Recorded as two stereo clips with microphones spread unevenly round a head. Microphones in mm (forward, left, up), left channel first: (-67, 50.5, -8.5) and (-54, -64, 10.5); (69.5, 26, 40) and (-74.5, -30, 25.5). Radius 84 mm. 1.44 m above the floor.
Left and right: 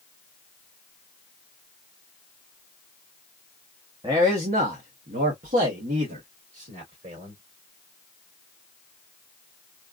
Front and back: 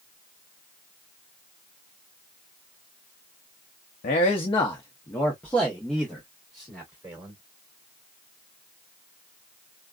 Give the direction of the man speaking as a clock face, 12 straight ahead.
1 o'clock.